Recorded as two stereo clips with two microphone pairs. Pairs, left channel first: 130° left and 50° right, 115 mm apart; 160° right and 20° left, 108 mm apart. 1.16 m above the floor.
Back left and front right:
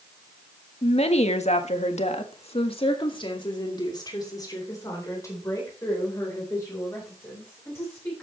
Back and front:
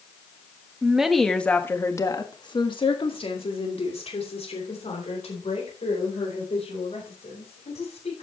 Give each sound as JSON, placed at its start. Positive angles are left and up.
{"t": 0.8, "sound": "a woman speaking", "azimuth_deg": 100, "distance_m": 1.5}